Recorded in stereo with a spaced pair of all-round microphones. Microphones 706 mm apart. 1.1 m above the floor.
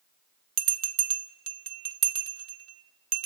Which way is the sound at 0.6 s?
60° right (ahead or behind).